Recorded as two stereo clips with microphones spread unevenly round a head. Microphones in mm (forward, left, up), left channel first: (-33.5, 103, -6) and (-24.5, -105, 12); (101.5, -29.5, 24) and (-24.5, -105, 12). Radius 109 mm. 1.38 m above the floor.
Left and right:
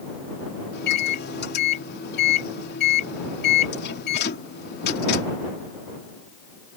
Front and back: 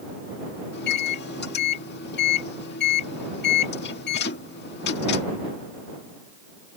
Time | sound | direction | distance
0.7 | a microwave | 45° left | ?